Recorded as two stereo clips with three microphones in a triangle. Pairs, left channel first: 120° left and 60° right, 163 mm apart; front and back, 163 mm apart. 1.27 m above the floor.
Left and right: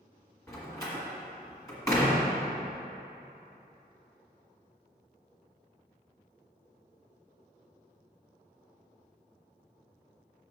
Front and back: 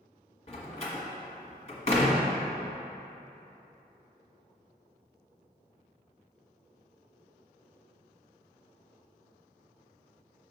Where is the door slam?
50° left, 1.3 m.